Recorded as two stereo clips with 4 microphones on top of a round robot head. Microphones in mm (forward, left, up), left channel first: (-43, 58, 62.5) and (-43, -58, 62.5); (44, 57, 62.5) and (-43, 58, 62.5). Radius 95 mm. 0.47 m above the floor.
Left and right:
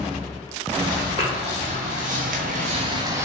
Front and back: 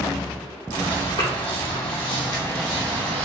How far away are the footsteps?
About 2.0 m.